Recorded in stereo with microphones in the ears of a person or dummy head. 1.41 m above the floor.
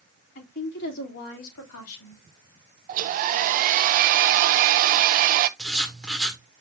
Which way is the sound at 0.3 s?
50° left (ahead or behind).